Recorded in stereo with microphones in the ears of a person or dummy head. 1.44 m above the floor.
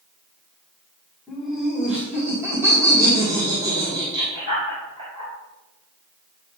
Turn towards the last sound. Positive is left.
turn(degrees=-40)  # may be behind; listen again after turning